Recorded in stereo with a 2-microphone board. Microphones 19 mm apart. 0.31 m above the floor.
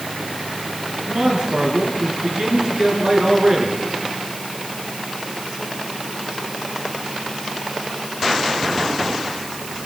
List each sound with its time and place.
1.1 s a man speaking: 45° right (ahead or behind), 5 m